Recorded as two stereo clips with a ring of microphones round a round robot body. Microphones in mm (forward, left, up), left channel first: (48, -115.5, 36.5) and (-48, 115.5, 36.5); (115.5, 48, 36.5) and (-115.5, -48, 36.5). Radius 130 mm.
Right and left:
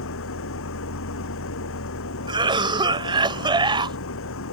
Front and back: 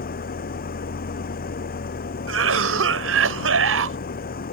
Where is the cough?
Straight behind.